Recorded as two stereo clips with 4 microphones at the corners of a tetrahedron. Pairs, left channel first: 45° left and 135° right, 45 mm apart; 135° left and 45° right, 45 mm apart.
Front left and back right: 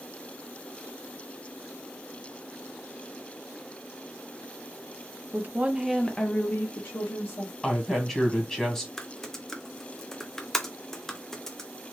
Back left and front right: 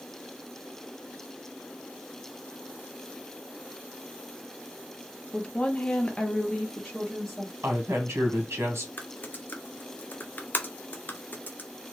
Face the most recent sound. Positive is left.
turn(degrees=120)